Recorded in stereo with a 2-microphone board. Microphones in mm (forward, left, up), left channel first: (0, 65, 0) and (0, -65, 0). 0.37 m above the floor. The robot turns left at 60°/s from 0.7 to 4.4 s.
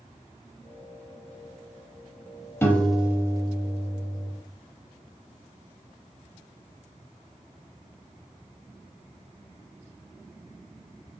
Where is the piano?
20° left, 0.5 m; by 4.3 s 85° right, 0.5 m.